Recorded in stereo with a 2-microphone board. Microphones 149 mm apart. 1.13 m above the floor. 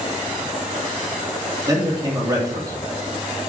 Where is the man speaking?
25° right (ahead or behind), 2.5 m.